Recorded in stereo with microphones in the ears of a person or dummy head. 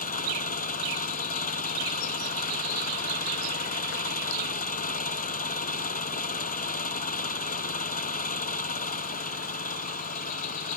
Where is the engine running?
40° left (ahead or behind).